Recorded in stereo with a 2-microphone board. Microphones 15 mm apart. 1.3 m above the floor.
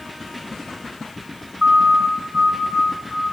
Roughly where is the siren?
Right.